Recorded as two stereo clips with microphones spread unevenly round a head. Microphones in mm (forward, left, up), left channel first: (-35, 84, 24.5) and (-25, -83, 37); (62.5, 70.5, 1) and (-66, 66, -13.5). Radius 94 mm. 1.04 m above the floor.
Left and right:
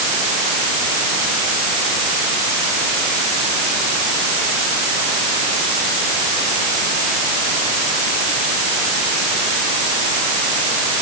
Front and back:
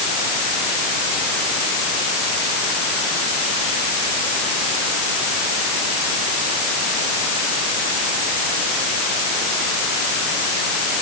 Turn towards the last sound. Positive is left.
No sound to turn to.